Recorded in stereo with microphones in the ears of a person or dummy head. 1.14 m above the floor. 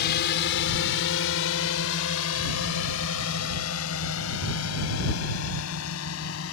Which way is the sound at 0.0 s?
55° left (ahead or behind).